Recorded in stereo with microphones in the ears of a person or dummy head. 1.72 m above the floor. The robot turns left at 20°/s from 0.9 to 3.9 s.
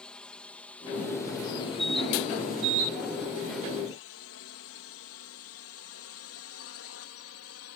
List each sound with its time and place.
0.0 s a drone: 5° left (ahead or behind); by 7.8 s 70° left (ahead or behind)